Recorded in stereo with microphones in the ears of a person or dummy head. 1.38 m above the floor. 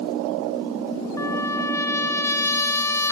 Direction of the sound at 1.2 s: 20° left (ahead or behind).